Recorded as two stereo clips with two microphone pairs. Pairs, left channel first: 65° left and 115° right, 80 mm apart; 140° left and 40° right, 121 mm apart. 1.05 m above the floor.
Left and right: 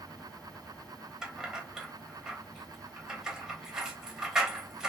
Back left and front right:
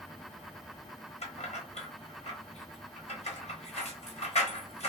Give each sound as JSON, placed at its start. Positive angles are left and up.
{"t": 1.2, "sound": "keys jangling", "azimuth_deg": 165, "distance_m": 1.0}